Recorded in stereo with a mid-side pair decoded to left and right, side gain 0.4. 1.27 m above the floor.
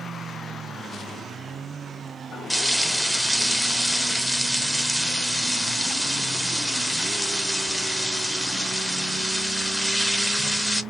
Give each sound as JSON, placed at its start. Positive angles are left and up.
{"t": 2.5, "sound": "frying", "azimuth_deg": 0, "distance_m": 0.6}